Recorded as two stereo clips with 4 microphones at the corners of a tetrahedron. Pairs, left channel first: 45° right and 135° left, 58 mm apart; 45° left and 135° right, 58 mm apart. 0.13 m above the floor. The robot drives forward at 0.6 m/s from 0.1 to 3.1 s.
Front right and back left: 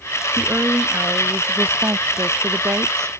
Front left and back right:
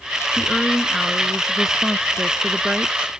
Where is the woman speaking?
120° left; by 3.1 s 155° left.